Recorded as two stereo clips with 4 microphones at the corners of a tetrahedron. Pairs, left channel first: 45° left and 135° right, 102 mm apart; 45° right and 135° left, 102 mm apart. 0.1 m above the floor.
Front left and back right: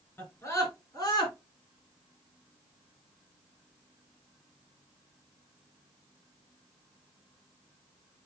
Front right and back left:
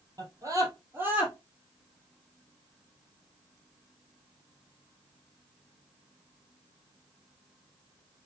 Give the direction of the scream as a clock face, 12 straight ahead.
9 o'clock.